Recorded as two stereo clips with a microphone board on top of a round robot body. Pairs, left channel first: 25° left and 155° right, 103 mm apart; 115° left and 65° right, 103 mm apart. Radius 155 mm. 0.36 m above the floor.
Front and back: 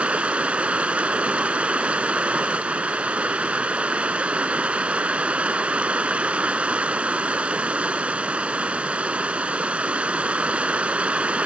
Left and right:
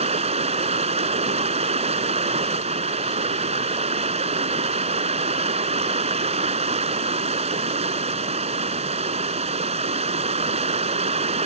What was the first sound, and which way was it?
Running water, 80° right.